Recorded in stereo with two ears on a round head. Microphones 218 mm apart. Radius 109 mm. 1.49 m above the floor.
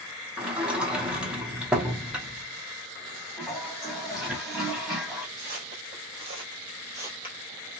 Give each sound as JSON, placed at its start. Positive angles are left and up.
{"t": 0.4, "sound": "a sliding door", "side_deg": -5, "distance_m": 0.8}
{"t": 3.4, "sound": "a toilet flushing", "side_deg": 0, "distance_m": 1.2}
{"t": 5.4, "sound": "footsteps", "side_deg": -35, "distance_m": 1.9}